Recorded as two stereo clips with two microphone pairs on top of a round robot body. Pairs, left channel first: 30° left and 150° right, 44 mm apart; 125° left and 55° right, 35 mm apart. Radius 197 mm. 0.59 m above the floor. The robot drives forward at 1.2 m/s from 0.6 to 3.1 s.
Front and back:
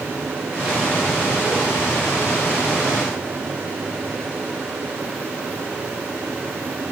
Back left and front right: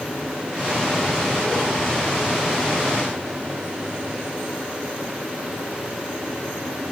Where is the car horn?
No car horn in this recording.